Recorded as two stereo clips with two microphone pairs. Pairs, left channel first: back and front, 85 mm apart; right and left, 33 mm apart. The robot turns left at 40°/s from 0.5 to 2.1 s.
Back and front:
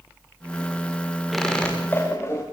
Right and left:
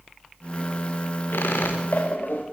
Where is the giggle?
I don't hear a giggle.